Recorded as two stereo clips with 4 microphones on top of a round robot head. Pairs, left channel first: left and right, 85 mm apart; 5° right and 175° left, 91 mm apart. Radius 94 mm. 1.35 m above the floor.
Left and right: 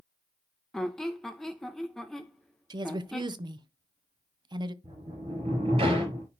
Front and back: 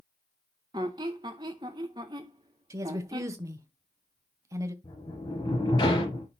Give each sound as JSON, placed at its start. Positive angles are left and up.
{"t": 0.7, "sound": "a squeak", "azimuth_deg": 170, "distance_m": 0.5}
{"t": 2.7, "sound": "a woman speaking", "azimuth_deg": -125, "distance_m": 0.8}
{"t": 4.8, "sound": "a sliding door", "azimuth_deg": -55, "distance_m": 4.0}